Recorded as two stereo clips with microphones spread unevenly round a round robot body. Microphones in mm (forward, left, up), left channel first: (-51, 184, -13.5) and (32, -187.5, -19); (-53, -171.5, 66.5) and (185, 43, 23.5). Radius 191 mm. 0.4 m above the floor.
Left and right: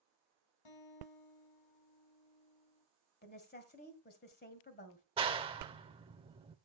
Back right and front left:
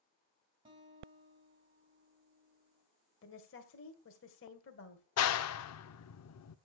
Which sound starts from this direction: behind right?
A clap, at 5.2 s.